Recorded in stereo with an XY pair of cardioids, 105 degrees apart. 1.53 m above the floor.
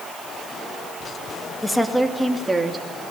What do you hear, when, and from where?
1.6 s a woman speaking: 10° left, 2.5 m; by 2.9 s 25° right, 3 m